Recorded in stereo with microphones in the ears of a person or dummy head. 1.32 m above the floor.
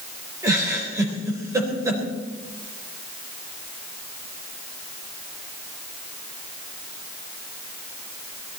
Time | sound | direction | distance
0.4 | a giggle | 20° right (ahead or behind) | 4.5 m